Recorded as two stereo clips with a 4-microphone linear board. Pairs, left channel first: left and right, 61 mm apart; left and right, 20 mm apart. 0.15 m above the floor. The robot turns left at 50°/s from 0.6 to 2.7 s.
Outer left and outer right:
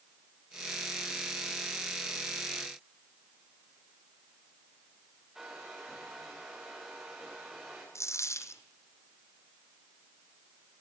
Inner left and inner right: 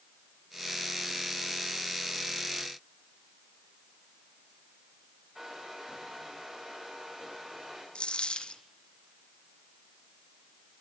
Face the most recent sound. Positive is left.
turn(degrees=60)  # may be behind; listen again after turning